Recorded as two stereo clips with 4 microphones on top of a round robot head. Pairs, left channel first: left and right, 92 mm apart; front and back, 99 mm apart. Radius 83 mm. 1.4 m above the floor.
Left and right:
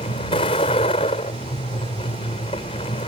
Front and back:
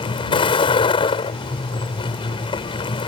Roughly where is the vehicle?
Ahead left.